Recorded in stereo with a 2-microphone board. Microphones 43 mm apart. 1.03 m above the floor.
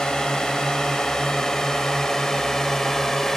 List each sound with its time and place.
0.0 s a drone: 15° left (ahead or behind); by 3.4 s 10° left (ahead or behind)